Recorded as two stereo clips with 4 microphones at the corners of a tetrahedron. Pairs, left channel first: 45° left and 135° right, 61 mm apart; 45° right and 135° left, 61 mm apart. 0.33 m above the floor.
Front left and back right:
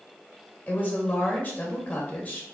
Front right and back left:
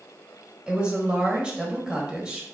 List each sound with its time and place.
0.7 s a woman speaking: 75° left, 1.3 m